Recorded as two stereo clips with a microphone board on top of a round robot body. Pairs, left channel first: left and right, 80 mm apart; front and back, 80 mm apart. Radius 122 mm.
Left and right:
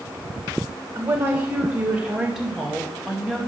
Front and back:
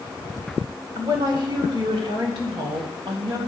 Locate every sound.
0.9 s a woman speaking: 145° right, 2.5 m; by 3.4 s 175° left, 3 m